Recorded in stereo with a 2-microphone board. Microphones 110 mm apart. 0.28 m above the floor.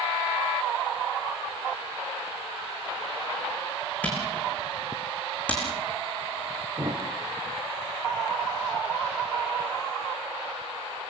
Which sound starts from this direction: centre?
A camera shutter, at 4.0 s.